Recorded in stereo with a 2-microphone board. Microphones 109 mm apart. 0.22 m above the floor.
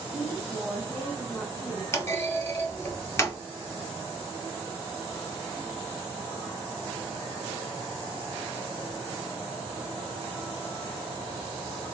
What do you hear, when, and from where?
0.1 s a woman speaking: 20° left (ahead or behind), 1.6 m; by 1.8 s 15° left (ahead or behind), 1.6 m
1.9 s a clunk: 25° left (ahead or behind), 0.7 m